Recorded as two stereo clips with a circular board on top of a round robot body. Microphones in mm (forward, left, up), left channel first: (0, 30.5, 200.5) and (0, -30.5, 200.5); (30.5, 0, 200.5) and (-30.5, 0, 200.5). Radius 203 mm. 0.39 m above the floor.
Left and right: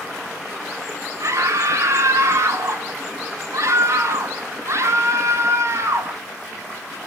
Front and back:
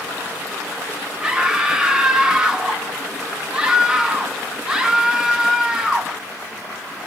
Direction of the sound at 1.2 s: 105° right.